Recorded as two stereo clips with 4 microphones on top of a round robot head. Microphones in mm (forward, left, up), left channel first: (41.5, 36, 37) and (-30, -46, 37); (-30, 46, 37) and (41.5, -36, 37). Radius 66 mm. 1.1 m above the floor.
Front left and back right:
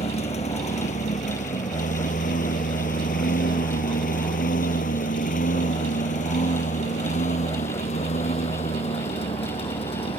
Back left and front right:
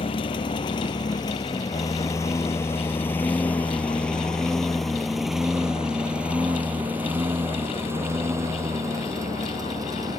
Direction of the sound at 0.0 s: 85° left.